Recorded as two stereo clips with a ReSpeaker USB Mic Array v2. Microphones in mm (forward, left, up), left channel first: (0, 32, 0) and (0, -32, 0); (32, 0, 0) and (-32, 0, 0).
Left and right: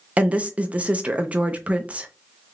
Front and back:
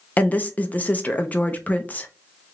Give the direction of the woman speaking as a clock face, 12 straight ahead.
1 o'clock.